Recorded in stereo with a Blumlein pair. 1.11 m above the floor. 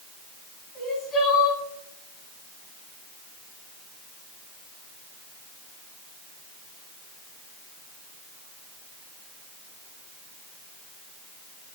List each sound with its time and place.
0.8 s crying: 25° left, 6.5 m